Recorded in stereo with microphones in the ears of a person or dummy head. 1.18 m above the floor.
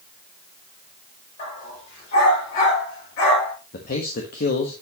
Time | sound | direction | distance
1.4 | a dog barking | 50° left (ahead or behind) | 7 m
3.7 | a man speaking | 55° left (ahead or behind) | 1.3 m